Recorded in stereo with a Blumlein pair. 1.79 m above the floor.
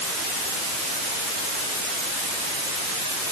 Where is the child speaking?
I don't hear a child speaking.